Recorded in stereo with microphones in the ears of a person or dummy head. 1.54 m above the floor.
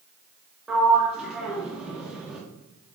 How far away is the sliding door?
About 0.7 m.